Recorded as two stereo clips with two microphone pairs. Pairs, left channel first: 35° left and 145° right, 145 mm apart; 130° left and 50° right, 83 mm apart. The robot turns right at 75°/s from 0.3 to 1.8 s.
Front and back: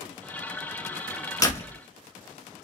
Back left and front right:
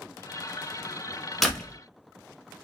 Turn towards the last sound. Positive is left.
turn(degrees=65)